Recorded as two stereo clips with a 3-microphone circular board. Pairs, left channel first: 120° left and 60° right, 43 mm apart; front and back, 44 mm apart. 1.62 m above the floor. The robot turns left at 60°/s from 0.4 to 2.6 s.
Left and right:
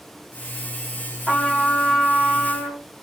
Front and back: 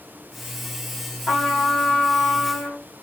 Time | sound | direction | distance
1.3 | a trumpet | 40° left | 2 m